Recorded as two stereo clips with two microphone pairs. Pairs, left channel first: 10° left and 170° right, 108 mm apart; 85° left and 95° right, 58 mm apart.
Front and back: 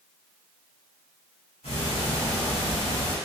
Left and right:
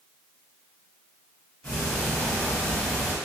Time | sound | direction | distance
1.6 | ticking | 15° left | 1.8 m